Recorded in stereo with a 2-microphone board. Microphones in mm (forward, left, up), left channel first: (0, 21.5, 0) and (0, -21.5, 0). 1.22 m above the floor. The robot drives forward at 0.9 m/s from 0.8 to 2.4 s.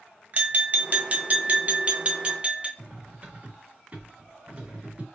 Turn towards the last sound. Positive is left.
turn(degrees=-30)  # may be behind; listen again after turning